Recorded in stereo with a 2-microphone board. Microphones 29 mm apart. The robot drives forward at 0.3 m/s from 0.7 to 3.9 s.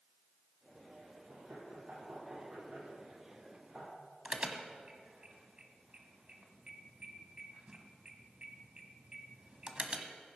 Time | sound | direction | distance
1.3 | knocking | 70° right (ahead or behind) | 5.5 m
4.2 | an alarm | 35° right (ahead or behind) | 1.4 m